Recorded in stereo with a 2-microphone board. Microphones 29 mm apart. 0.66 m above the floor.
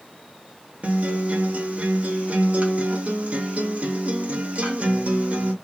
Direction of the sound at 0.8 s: 55° right (ahead or behind).